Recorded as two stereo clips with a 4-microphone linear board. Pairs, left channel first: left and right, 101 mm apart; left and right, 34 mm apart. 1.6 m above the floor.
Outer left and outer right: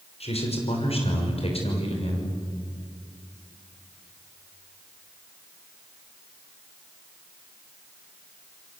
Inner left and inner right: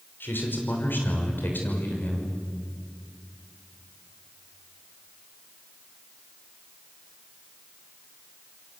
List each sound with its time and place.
0.2 s a man speaking: 75° left (ahead or behind), 6 m; by 2.3 s 65° left (ahead or behind), 6.5 m